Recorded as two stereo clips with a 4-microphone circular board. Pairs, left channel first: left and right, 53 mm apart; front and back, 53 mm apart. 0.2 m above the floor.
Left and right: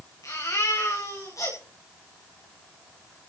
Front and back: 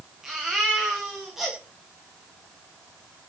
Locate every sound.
0.2 s a baby crying: 95° left, 9.5 m